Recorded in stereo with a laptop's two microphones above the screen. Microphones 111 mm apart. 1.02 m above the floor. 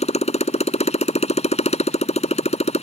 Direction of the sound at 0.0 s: 75° left (ahead or behind).